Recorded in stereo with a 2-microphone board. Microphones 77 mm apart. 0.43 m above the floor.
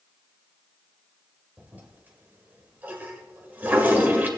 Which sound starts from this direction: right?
A toilet flushing, at 1.6 s.